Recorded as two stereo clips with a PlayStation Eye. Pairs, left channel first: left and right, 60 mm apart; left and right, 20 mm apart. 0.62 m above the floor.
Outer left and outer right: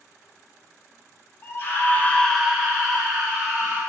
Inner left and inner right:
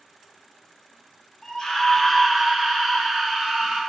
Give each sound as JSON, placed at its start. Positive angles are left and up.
{"t": 1.4, "sound": "a scream", "side_deg": 40, "distance_m": 1.4}